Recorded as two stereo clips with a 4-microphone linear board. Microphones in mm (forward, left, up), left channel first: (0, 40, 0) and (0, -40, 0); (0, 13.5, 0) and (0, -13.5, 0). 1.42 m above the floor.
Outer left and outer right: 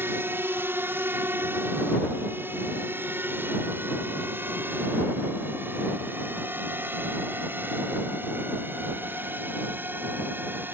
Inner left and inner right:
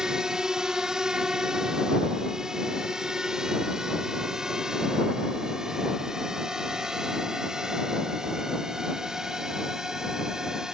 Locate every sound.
0.0 s a drone: 30° right (ahead or behind); by 10.7 s 25° right (ahead or behind)